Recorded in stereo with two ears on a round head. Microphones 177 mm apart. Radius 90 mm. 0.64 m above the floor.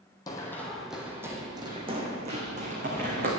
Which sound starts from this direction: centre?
Running footsteps, at 0.3 s.